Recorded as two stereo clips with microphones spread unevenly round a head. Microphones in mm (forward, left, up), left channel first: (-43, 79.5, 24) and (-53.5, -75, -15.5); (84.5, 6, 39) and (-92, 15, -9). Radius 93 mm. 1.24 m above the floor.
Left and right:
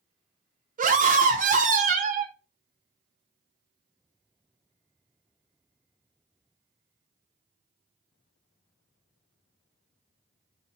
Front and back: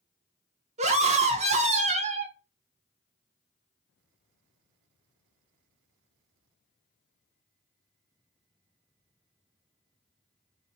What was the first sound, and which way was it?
A scream, 130° right.